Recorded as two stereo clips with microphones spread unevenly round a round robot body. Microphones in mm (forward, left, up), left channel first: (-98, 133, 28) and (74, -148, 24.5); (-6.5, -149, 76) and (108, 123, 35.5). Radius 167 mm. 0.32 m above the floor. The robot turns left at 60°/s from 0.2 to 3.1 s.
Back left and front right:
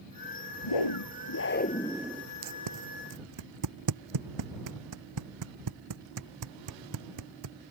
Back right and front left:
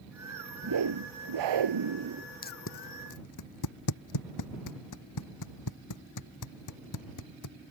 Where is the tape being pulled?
50° right; by 7.5 s 90° right.